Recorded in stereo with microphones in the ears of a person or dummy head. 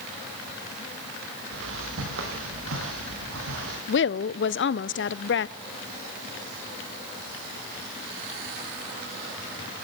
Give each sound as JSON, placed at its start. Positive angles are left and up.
{"t": 1.5, "sound": "footsteps", "side_deg": -75, "distance_m": 4.5}
{"t": 3.9, "sound": "a woman speaking", "side_deg": 60, "distance_m": 0.6}